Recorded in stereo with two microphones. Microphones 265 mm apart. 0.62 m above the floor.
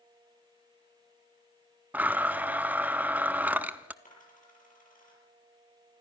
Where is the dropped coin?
30° left (ahead or behind), 6.5 m.